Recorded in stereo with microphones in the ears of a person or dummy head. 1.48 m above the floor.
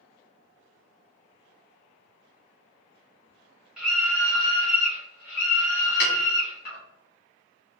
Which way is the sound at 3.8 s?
5° right (ahead or behind).